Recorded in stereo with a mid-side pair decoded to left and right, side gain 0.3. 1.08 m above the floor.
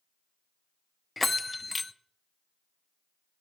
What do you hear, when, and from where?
1.2 s a bell: 30° left, 0.5 m